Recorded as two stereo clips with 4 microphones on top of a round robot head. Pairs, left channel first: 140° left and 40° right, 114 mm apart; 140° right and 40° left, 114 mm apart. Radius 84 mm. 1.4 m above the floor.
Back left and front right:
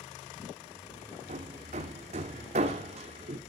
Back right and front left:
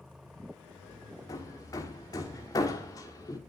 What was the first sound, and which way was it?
Hammering, 80° right.